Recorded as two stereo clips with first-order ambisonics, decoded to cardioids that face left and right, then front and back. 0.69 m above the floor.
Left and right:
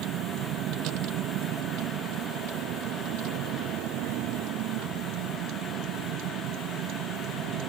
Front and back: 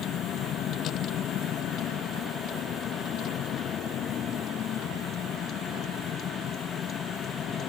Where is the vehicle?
50° right; by 7.7 s 60° right.